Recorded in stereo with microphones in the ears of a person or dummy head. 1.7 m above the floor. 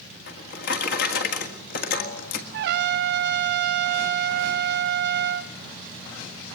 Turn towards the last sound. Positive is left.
turn(degrees=-65)  # may be behind; listen again after turning